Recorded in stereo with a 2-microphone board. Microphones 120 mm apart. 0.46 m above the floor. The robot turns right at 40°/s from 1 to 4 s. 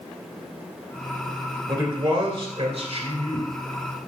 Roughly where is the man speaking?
Behind right.